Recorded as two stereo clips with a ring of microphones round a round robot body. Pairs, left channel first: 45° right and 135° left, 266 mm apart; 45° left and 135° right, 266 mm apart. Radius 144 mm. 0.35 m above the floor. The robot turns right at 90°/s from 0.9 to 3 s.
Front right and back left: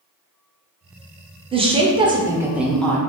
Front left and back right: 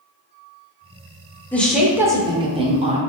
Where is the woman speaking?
115° left, 0.9 m; by 3.0 s 110° right, 0.9 m.